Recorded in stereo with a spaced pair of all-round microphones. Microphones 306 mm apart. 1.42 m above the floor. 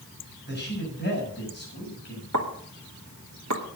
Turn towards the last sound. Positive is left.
turn(degrees=-65)  # may be behind; listen again after turning